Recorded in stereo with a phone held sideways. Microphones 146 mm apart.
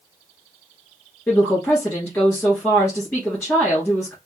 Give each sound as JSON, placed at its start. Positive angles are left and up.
{"t": 1.3, "sound": "a woman speaking", "side_deg": 5, "distance_m": 1.8}